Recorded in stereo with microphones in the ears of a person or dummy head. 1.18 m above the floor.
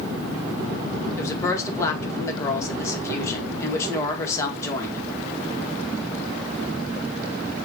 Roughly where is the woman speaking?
Centre.